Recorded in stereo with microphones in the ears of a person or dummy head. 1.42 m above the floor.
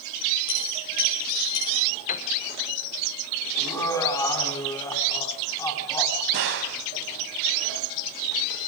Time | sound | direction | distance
0.5 | a dropped coin | 70° left (ahead or behind) | 7.5 m
2.1 | a piano | 45° left (ahead or behind) | 1.4 m
3.6 | laughter | 20° left (ahead or behind) | 3.5 m
6.3 | a gunshot | 60° right (ahead or behind) | 2.5 m